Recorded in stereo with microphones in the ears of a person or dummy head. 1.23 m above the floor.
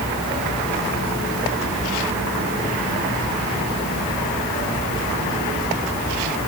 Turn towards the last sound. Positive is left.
No sound to turn to.